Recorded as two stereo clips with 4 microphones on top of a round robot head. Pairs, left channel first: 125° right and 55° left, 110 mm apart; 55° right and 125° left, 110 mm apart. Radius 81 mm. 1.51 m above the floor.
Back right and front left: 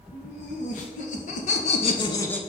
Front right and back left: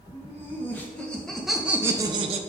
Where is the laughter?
125° right, 2 m; by 2.4 s 155° left, 0.7 m.